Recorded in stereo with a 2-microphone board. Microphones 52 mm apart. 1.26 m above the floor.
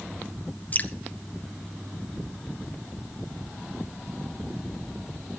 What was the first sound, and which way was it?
Dripping, 35° left (ahead or behind).